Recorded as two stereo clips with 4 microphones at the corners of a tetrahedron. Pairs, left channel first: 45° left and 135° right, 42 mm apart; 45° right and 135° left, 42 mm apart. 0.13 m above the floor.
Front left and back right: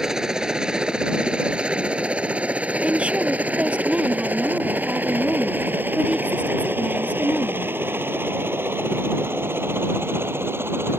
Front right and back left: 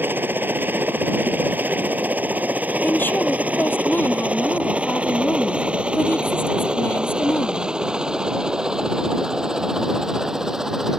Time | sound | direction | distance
0.0 | a helicopter | 150° left | ?
2.8 | a woman speaking | 75° right | ?